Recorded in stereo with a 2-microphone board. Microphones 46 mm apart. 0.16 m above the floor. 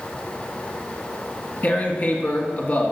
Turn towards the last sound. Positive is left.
turn(degrees=40)  # may be behind; listen again after turning